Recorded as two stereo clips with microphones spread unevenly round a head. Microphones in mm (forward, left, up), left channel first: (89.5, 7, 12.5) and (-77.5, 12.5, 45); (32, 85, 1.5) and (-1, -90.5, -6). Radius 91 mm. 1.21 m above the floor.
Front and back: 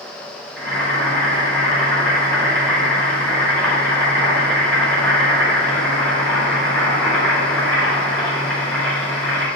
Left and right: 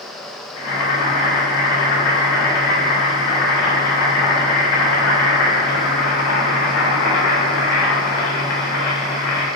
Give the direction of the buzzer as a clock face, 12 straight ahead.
No buzzer in this recording.